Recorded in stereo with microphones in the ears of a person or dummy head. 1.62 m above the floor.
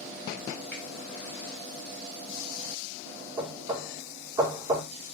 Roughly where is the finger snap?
Centre.